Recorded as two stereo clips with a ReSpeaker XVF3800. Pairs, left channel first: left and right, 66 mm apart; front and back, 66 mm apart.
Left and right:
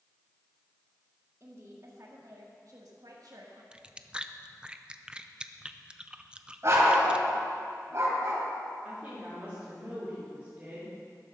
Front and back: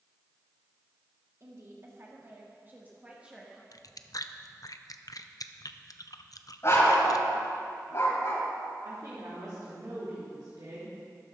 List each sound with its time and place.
1.4 s a woman speaking: 135° right, 2.5 m; by 3.6 s 100° right, 1.5 m
3.7 s chewing: 15° right, 0.6 m
6.6 s a dog barking: 45° right, 3 m
8.8 s a woman speaking: 155° right, 3.5 m